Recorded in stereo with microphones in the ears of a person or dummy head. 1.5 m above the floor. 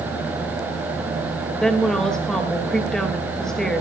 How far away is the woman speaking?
About 2.5 m.